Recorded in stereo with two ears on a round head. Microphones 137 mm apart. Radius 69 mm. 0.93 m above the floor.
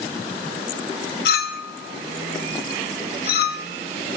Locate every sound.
1.2 s a clink: 80° left, 0.9 m